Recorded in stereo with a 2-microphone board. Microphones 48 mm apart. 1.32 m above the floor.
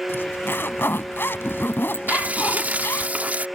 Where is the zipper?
55° left (ahead or behind).